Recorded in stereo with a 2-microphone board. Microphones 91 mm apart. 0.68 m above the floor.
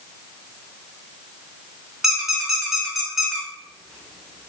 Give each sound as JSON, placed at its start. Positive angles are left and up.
{"t": 2.0, "sound": "a squeak", "side_deg": -5, "distance_m": 0.5}